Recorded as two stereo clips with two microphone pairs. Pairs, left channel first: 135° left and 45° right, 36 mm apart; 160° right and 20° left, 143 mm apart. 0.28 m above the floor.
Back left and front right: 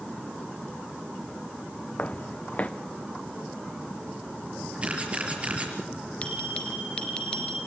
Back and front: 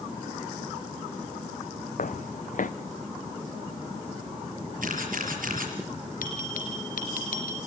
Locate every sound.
2.0 s footsteps: 175° right, 1.1 m
4.8 s a camera shutter: 10° left, 6.5 m
6.2 s a bell: 165° right, 3.5 m